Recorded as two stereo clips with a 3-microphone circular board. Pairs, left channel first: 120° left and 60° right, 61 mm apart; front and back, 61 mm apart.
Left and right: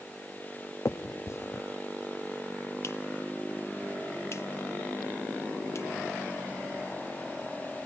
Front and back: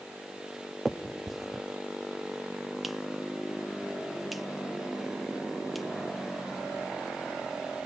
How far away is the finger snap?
About 0.7 m.